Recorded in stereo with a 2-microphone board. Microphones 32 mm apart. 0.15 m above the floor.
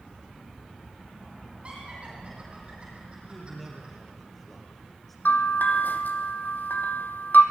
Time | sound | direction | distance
1.6 | laughter | 35° right (ahead or behind) | 6 m
3.2 | a man speaking | 5° left (ahead or behind) | 3.5 m
5.2 | a bell | 80° left | 1.2 m